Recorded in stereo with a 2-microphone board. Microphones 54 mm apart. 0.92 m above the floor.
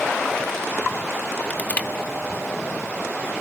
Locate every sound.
1.5 s crushing: 30° left (ahead or behind), 1.2 m